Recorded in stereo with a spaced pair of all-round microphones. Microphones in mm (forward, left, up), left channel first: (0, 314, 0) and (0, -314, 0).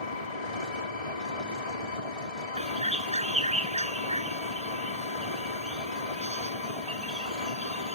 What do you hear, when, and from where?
0.0 s an engine running: 70° left (ahead or behind)
2.6 s a bird: 10° right (ahead or behind)